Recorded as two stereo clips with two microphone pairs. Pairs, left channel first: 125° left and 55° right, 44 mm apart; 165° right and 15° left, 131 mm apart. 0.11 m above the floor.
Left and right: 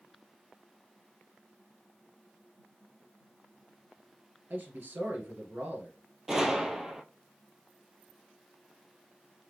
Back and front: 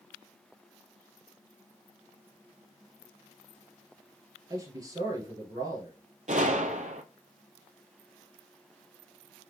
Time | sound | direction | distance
4.5 | a man speaking | 40° right | 2.0 m
6.3 | a gunshot | 20° left | 0.6 m